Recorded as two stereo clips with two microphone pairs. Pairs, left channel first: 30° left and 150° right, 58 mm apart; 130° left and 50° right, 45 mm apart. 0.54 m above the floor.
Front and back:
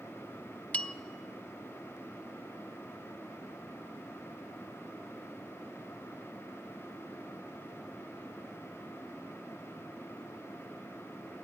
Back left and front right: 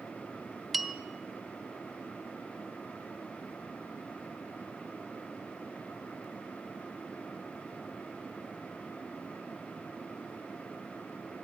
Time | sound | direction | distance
0.7 | a bell | 40° left | 0.5 m